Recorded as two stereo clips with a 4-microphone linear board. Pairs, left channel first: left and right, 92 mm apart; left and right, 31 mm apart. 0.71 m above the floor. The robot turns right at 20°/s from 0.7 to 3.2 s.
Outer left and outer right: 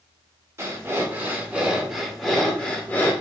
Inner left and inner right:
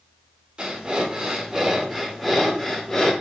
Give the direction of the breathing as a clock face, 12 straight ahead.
1 o'clock.